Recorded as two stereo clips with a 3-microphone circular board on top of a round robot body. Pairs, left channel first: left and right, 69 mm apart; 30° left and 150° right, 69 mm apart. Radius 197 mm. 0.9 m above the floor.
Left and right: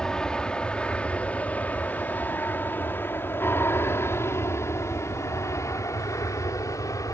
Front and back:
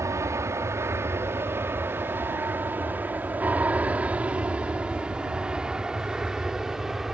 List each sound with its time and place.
0.0 s an aircraft: 170° left; by 7.1 s 125° left